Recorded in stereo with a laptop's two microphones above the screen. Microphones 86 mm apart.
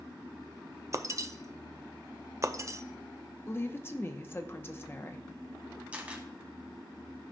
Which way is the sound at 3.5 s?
25° left (ahead or behind).